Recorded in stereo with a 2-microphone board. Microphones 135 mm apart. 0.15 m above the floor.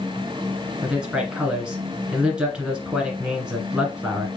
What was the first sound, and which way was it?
A man speaking, 5° right (ahead or behind).